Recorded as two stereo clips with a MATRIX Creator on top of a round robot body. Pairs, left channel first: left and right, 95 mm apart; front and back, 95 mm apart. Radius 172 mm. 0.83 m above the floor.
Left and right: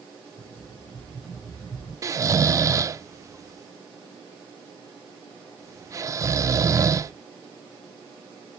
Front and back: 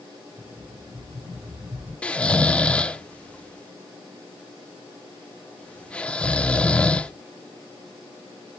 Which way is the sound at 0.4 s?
125° left.